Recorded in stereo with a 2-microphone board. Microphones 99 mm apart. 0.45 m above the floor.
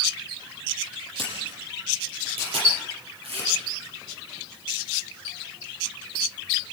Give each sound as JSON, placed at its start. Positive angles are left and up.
{"t": 1.2, "sound": "a camera shutter", "side_deg": -75, "distance_m": 8.5}